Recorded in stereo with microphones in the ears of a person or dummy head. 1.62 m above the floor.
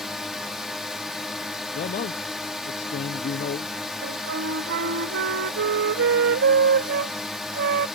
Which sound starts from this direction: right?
A flute, at 4.0 s.